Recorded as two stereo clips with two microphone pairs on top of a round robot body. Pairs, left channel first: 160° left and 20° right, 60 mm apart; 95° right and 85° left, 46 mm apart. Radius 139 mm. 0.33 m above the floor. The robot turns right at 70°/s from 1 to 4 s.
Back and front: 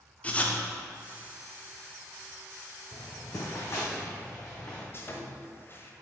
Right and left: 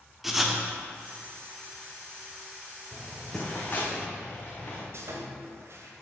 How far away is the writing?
About 1.2 m.